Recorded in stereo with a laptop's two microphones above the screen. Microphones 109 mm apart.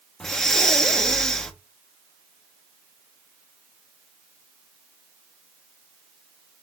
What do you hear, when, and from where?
0.2 s breathing: 5° left (ahead or behind), 0.9 m